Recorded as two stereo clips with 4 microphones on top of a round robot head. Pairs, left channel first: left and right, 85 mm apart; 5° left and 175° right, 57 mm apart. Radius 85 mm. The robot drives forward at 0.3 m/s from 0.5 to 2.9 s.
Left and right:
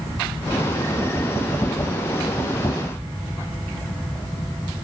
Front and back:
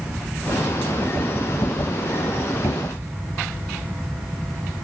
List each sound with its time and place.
Only background noise.